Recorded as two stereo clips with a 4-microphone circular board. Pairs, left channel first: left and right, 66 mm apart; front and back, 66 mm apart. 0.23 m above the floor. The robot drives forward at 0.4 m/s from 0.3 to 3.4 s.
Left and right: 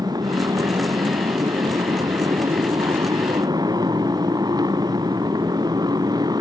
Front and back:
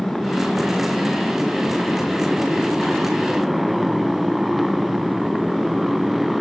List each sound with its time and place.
0.0 s a motorcycle: 85° right; by 6.4 s 90° right